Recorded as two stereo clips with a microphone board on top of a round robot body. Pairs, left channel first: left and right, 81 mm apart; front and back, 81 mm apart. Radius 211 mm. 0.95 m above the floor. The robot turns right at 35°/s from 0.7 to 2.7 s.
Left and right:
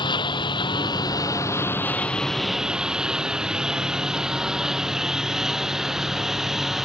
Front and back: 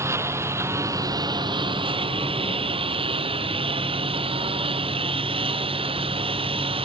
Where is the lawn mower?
120° left; by 6.8 s 175° right.